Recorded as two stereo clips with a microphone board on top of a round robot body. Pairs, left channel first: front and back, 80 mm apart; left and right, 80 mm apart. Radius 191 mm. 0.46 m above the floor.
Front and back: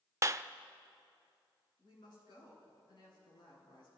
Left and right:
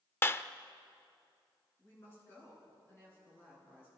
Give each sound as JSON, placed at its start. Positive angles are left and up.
{"t": 0.2, "sound": "a clap", "azimuth_deg": 140, "distance_m": 0.9}
{"t": 1.8, "sound": "a woman speaking", "azimuth_deg": 25, "distance_m": 9.5}